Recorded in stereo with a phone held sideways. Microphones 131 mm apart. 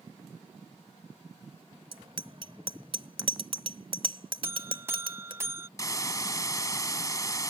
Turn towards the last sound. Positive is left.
turn(degrees=25)  # may be behind; listen again after turning